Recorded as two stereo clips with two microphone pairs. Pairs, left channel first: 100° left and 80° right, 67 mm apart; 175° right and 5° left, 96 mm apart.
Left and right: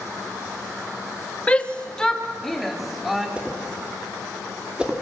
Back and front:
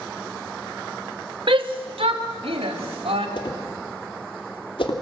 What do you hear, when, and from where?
1.5 s a shout: 30° left, 2 m; by 3.3 s 5° left, 3.5 m
3.4 s a whoosh: 150° right, 2.5 m